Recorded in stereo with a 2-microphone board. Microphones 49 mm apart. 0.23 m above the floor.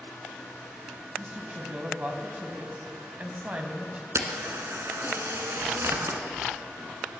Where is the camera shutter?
65° right (ahead or behind), 1.3 m.